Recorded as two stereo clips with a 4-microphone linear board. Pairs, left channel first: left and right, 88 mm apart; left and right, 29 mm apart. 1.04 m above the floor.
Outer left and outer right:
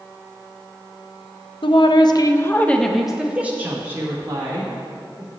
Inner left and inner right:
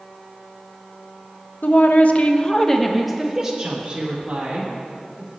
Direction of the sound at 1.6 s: 70° left (ahead or behind).